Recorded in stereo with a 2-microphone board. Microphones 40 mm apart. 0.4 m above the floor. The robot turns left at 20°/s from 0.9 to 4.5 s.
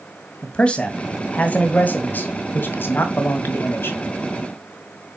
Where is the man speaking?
150° left, 2.0 m; by 4.0 s 90° left, 2.0 m.